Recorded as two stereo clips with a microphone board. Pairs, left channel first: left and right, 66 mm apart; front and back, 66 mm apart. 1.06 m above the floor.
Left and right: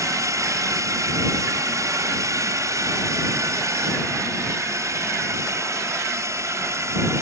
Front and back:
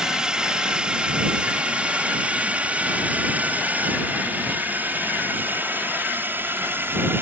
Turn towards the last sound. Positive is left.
turn(degrees=-130)